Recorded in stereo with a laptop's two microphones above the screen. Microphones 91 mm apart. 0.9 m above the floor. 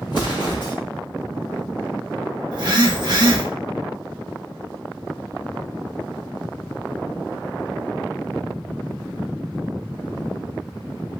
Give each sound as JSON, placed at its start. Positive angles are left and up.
{"t": 0.1, "sound": "an explosion", "side_deg": 55, "distance_m": 0.9}
{"t": 2.5, "sound": "a phone buzzing", "side_deg": -50, "distance_m": 0.7}